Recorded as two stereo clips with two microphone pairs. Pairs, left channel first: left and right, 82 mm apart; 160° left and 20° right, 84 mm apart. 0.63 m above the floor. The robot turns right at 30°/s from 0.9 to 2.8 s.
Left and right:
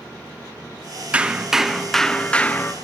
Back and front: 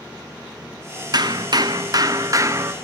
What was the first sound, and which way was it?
Hammering, 20° right.